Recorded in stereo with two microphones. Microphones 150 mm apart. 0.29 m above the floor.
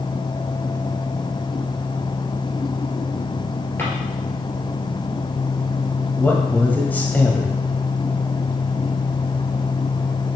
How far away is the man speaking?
About 1.5 m.